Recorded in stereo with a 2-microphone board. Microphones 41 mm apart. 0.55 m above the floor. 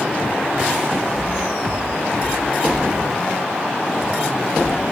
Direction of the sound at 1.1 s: 10° left (ahead or behind).